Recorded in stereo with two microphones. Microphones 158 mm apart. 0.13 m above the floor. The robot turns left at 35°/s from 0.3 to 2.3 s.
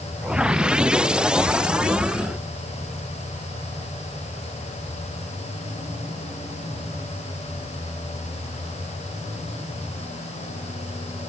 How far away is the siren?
I don't hear a siren.